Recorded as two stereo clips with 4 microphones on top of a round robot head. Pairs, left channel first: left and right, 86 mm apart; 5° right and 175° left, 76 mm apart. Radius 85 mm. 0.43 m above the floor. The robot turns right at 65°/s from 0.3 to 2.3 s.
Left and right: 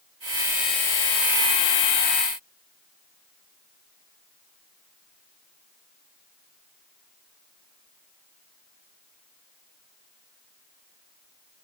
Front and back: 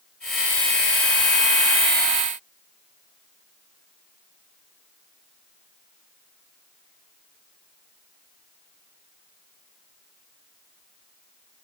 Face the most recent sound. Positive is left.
No sound to turn to.